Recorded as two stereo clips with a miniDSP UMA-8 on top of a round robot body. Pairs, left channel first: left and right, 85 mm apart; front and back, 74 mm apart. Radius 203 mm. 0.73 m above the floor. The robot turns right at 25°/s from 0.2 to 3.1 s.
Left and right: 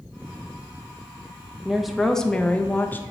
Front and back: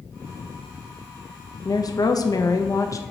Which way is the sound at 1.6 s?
5° right.